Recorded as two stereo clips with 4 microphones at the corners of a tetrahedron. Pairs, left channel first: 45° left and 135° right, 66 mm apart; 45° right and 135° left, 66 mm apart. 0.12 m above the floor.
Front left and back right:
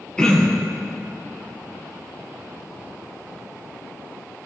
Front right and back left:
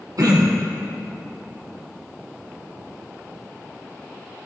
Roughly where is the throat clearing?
Behind left.